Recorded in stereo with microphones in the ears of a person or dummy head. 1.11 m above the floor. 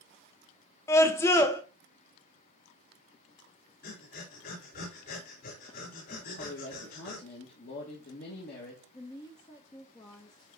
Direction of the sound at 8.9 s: 20° left (ahead or behind).